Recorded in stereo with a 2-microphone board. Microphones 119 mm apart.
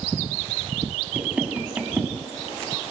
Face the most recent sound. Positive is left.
turn(degrees=-10)  # may be behind; listen again after turning